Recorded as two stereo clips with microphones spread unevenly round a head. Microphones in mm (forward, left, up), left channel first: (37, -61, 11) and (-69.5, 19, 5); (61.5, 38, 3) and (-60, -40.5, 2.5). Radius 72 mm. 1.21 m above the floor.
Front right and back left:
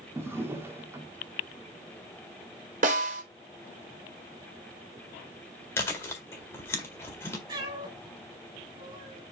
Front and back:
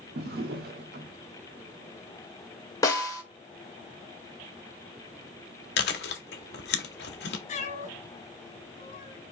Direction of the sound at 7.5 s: 80° left.